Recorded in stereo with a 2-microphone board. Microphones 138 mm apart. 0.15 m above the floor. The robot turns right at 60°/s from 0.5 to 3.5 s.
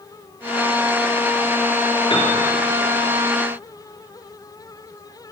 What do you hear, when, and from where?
2.1 s a piano: 40° left (ahead or behind), 2.5 m; by 2.3 s 50° left (ahead or behind), 2.5 m